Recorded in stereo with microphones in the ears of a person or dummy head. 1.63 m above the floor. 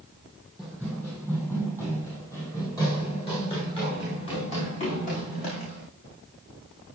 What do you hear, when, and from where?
0.6 s running footsteps: 5° left (ahead or behind), 4 m; by 5.9 s 40° left (ahead or behind), 5 m